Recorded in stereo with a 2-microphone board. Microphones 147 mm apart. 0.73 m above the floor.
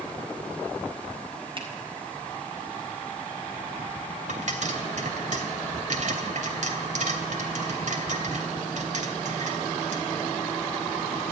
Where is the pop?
60° right (ahead or behind), 3 m.